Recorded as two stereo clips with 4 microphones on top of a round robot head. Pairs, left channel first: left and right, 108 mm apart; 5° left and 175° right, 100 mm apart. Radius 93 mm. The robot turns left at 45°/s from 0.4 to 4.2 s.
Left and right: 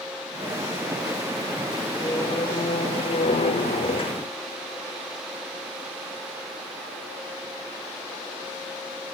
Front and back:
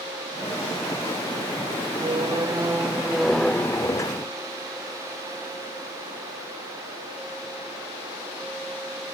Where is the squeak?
155° left; by 4.3 s 55° left.